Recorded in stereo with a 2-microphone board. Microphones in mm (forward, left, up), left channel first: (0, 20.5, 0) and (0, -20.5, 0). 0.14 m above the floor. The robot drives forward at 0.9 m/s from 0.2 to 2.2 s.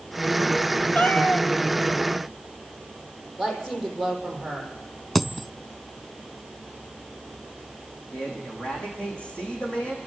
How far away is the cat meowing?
About 2.0 m.